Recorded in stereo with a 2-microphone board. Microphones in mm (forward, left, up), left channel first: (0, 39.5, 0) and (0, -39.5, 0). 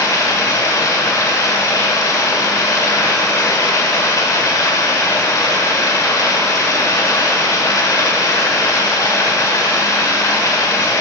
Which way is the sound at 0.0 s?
45° left (ahead or behind).